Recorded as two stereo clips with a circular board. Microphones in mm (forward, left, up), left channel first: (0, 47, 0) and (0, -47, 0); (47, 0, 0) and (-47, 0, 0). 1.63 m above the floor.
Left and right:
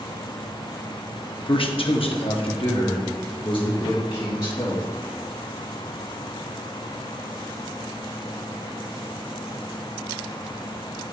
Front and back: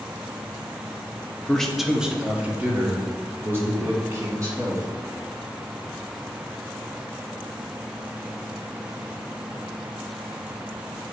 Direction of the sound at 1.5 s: 80° left.